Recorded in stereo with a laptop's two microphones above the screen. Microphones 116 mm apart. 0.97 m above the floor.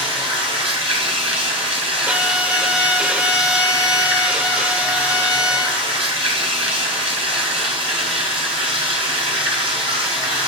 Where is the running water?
50° right (ahead or behind), 2.5 m.